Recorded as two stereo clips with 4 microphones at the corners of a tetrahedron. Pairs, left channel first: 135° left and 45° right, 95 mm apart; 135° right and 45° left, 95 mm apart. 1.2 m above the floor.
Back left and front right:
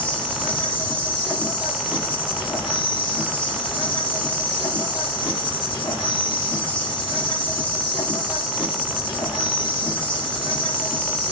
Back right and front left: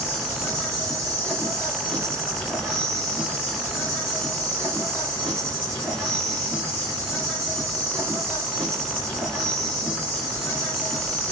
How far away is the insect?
About 2.5 m.